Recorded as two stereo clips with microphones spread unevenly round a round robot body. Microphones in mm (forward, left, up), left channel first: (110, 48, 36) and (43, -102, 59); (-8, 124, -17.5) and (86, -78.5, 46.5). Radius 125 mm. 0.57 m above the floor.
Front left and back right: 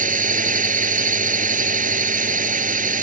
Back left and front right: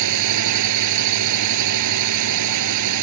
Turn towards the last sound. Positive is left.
turn(degrees=-75)